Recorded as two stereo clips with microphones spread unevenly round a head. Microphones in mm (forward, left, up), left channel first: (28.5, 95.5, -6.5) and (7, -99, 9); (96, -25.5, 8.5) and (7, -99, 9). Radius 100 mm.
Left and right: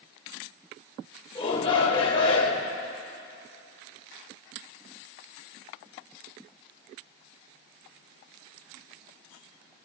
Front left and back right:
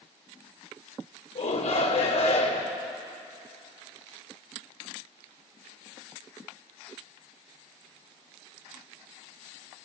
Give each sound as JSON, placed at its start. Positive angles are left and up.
{"t": 1.4, "sound": "a shout", "azimuth_deg": 10, "distance_m": 3.0}